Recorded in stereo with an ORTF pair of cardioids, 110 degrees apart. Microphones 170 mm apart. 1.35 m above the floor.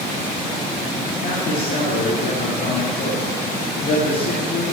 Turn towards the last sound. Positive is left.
turn(degrees=55)